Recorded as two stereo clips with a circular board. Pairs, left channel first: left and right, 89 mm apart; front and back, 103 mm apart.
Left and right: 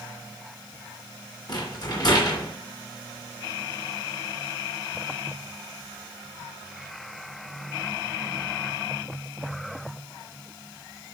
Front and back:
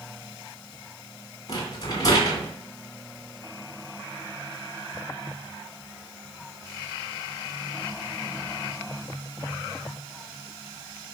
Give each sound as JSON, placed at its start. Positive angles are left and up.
{"t": 1.5, "sound": "a rattle", "azimuth_deg": 50, "distance_m": 2.5}